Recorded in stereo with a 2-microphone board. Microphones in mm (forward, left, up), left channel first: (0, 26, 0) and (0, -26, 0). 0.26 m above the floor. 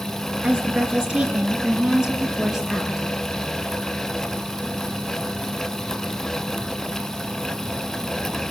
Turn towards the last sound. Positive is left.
turn(degrees=-5)  # may be behind; listen again after turning